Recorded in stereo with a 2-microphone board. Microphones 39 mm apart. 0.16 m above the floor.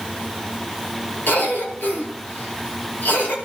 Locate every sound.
1.3 s a cough: 65° left (ahead or behind), 4 m